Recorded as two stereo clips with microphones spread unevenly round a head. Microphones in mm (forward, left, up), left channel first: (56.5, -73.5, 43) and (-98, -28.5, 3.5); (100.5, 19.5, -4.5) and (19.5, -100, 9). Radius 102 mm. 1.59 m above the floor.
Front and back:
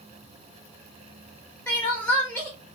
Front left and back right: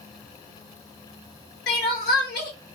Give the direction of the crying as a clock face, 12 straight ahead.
10 o'clock.